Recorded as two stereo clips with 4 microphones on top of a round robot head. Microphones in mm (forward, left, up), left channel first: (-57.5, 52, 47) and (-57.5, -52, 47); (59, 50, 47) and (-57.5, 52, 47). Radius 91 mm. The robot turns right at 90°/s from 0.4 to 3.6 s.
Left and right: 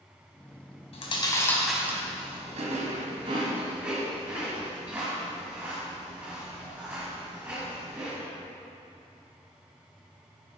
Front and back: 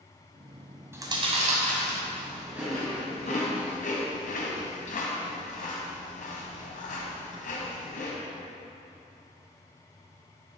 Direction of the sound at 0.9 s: 110° left.